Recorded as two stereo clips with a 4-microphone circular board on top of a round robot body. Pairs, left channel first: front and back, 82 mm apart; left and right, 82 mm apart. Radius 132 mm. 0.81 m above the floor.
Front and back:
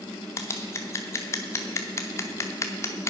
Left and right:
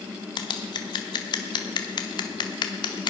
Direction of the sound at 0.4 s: 55° left.